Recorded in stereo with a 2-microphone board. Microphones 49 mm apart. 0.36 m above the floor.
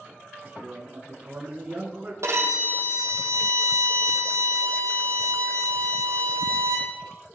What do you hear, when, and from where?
0.4 s a man speaking: 35° right (ahead or behind), 3 m
2.2 s a violin: 70° right (ahead or behind), 3 m